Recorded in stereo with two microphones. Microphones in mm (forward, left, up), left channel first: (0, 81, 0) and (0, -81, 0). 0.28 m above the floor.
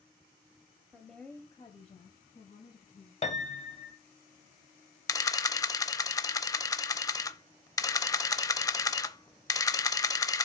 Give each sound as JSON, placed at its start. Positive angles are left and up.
{"t": 0.9, "sound": "a woman speaking", "side_deg": -10, "distance_m": 1.0}
{"t": 3.2, "sound": "a piano", "side_deg": 45, "distance_m": 1.0}
{"t": 5.1, "sound": "a camera shutter", "side_deg": 20, "distance_m": 0.6}